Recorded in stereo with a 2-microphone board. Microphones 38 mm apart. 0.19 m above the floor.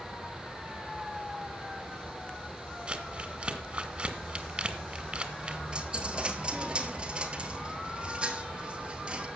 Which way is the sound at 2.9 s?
30° right (ahead or behind).